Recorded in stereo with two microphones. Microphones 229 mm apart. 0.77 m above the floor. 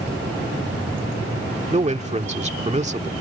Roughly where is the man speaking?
Right.